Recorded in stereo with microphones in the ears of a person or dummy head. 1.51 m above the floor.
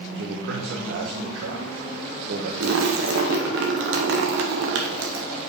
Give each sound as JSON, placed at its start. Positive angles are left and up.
{"t": 0.1, "sound": "a man speaking", "side_deg": -75, "distance_m": 1.0}
{"t": 2.6, "sound": "a splash", "side_deg": -70, "distance_m": 0.9}